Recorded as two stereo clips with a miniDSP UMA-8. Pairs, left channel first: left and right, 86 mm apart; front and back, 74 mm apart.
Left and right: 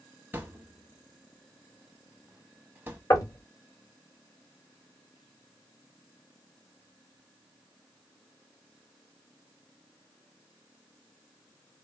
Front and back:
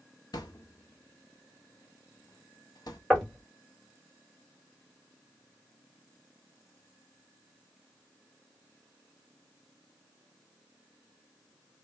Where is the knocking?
75° left, 1.4 m.